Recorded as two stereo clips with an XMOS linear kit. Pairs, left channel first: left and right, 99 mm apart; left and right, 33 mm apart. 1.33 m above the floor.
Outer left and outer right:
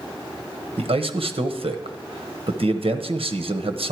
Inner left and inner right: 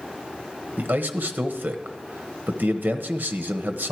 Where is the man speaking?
75° right (ahead or behind), 0.9 m.